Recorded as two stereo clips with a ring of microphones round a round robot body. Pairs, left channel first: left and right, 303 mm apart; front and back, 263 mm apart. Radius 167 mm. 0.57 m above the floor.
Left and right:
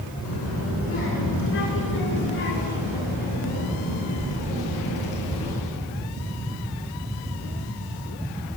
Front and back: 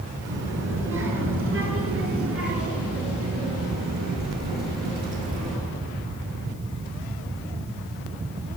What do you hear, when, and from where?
0.2 s a child speaking: 135° left, 4 m; by 5.6 s 160° left, 6.5 m